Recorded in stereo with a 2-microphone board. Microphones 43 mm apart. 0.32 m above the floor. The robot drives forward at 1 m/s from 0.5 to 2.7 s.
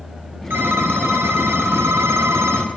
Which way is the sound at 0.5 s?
55° right (ahead or behind).